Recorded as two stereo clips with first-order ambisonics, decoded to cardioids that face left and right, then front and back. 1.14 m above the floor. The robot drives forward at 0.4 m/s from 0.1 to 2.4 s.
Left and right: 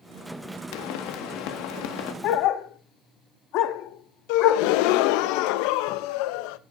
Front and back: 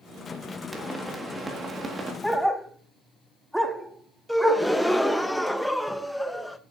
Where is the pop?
90° left, 1.6 m; by 2.1 s 110° left, 1.7 m.